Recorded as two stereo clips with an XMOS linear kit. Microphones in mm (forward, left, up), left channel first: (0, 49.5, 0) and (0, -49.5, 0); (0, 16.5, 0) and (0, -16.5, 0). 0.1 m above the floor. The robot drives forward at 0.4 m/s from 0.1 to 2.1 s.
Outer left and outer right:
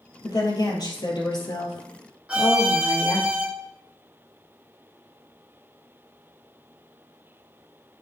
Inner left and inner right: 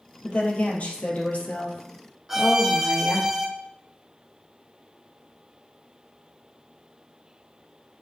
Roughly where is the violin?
Centre.